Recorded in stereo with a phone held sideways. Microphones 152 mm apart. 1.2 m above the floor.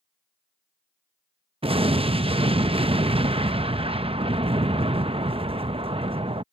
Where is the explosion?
40° right (ahead or behind).